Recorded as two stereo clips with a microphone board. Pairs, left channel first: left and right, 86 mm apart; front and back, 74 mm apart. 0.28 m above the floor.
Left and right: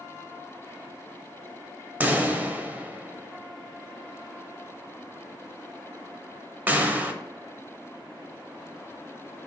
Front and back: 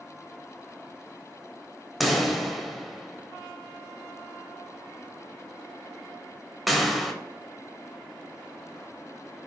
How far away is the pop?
About 0.5 m.